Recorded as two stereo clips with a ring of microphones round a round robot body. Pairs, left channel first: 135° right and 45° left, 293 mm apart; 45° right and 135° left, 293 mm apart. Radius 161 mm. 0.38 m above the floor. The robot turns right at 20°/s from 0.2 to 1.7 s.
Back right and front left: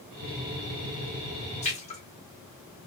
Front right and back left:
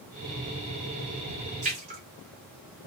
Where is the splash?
Straight behind, 1.5 m.